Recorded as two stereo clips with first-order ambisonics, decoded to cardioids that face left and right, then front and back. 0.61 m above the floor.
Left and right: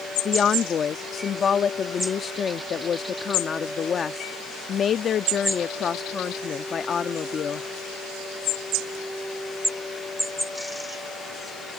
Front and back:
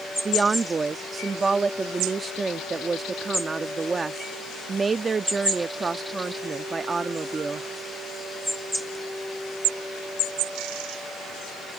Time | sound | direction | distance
0.2 | a woman speaking | 120° left | ?